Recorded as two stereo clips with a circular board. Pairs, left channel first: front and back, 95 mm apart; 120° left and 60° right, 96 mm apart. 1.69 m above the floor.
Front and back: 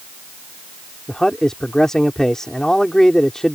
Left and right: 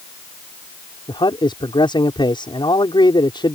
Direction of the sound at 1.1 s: 85° left.